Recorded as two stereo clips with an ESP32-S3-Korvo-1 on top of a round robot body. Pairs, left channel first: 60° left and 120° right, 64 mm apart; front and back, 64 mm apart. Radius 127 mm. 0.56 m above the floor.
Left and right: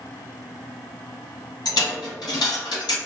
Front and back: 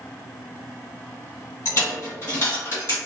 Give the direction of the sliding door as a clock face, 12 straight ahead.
I don't hear a sliding door.